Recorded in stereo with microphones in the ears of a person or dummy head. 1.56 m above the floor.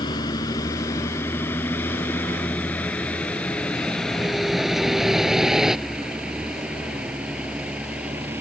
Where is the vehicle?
25° left (ahead or behind); by 8.4 s 5° right (ahead or behind).